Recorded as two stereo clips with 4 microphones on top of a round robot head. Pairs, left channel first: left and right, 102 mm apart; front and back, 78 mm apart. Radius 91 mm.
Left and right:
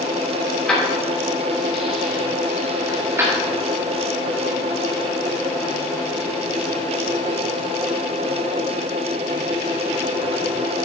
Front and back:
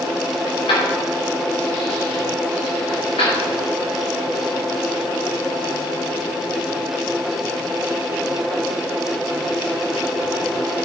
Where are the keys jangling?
10° left, 3.5 m; by 3.5 s 30° right, 3 m.